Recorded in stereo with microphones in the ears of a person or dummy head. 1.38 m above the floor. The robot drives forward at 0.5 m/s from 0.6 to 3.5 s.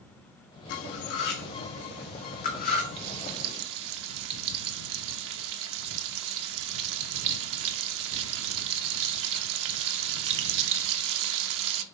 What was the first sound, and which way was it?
Cutlery clinking, 60° left (ahead or behind).